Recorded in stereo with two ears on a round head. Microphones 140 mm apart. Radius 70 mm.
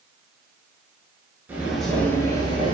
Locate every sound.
1.5 s footsteps: 15° right (ahead or behind), 0.5 m; by 2.7 s 35° left (ahead or behind), 0.7 m